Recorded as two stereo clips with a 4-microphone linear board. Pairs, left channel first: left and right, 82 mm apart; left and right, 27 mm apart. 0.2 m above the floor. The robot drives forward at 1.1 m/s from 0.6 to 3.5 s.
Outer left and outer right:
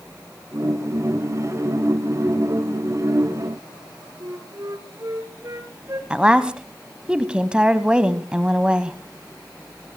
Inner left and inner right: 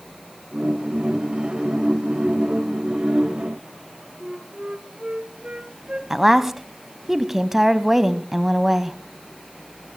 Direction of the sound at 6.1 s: 15° right (ahead or behind).